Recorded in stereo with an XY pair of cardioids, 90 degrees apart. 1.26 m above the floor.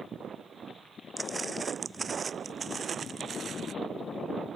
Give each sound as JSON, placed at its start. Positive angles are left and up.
{"t": 1.2, "sound": "footsteps", "azimuth_deg": -25}